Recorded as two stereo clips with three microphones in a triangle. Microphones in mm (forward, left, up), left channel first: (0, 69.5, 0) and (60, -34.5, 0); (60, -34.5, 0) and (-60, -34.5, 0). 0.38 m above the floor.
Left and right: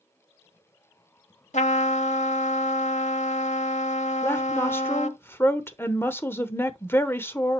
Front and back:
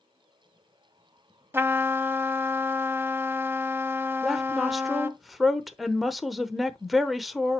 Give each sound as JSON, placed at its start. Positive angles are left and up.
{"t": 1.5, "sound": "a trumpet", "azimuth_deg": 110, "distance_m": 0.7}
{"t": 4.2, "sound": "a woman speaking", "azimuth_deg": 90, "distance_m": 0.9}